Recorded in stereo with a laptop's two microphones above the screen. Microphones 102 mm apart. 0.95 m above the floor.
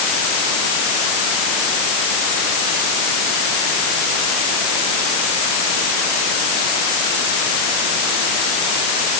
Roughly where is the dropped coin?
I don't hear a dropped coin.